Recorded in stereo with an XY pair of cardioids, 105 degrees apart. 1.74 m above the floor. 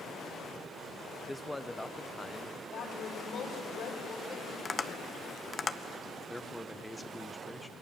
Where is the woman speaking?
65° left, 5.5 m.